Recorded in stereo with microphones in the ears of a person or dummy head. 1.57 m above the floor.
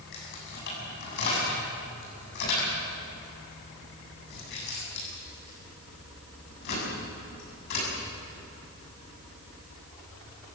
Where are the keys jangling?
60° left (ahead or behind), 8 m.